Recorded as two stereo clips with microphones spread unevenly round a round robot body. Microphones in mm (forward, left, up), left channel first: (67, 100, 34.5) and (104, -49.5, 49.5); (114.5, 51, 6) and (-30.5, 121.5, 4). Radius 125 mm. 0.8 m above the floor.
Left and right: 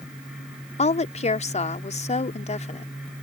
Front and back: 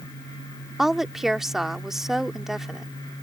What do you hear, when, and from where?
0.8 s a woman speaking: 65° left